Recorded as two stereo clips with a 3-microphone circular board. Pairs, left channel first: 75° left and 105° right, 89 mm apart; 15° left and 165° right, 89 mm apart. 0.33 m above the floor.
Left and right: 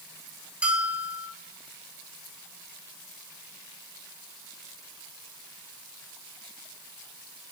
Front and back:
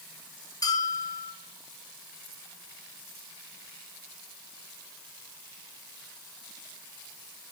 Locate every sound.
0.6 s a bell: 30° right, 1.0 m